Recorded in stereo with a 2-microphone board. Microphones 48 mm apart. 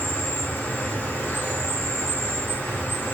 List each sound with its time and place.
0.0 s an insect: 50° left (ahead or behind), 0.7 m